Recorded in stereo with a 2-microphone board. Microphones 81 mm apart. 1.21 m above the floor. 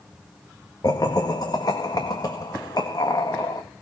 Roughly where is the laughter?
Left.